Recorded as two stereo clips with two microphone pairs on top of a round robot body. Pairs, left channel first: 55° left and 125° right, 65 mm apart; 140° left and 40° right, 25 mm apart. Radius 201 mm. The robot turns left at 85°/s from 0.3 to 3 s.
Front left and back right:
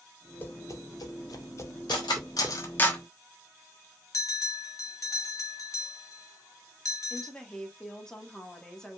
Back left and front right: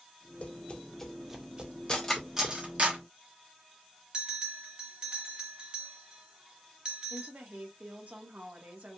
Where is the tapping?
115° left, 1.7 m; by 2.5 s 70° right, 1.7 m.